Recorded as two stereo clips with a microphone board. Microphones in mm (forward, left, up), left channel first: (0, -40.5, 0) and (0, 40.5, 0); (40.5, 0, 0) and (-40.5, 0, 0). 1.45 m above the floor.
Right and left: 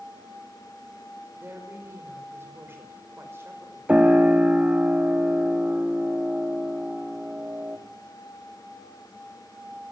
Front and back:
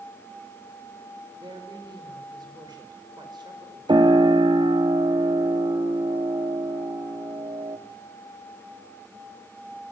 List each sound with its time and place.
1.4 s a woman speaking: 150° left, 5 m
3.9 s a piano: 165° left, 2.5 m